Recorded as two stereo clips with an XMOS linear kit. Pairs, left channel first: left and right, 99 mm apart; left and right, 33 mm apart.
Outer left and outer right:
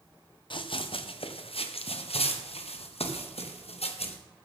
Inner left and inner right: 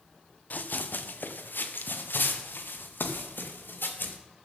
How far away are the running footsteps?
About 1.2 m.